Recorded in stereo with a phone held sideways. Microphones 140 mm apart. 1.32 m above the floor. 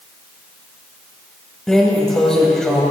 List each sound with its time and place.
1.7 s a drawer: 5° left (ahead or behind), 1.7 m